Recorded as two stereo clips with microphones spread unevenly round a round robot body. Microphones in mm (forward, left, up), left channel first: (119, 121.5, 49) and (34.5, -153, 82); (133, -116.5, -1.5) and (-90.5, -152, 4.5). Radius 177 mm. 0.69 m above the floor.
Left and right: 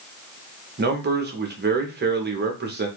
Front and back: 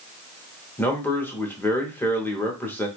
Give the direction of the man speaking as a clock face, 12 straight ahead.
2 o'clock.